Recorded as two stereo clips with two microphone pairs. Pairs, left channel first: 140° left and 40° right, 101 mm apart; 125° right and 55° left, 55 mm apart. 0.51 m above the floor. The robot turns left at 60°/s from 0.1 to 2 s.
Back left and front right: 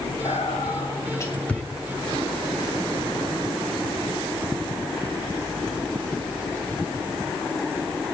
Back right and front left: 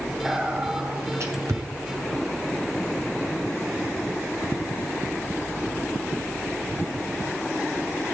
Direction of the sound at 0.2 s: 140° left.